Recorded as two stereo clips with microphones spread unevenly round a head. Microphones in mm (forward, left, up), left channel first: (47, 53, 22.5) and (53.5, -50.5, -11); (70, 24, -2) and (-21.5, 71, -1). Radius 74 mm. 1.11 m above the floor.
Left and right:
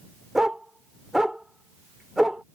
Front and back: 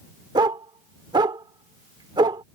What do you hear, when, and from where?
0.3 s a dog barking: 160° left